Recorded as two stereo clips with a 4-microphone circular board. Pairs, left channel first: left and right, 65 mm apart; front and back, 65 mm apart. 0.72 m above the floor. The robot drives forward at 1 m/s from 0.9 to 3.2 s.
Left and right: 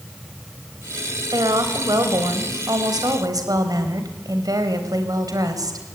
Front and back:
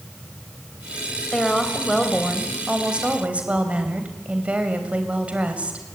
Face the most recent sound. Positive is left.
turn(degrees=-110)